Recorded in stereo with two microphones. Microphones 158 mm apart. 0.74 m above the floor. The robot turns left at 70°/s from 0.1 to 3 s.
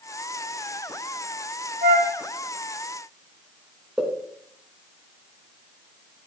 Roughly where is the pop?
Centre.